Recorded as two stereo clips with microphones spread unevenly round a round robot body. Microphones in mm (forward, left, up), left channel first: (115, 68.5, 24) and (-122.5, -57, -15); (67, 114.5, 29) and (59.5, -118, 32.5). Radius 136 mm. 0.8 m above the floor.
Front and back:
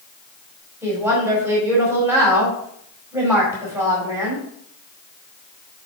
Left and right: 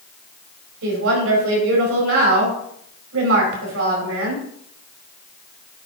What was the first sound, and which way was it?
A woman speaking, 70° right.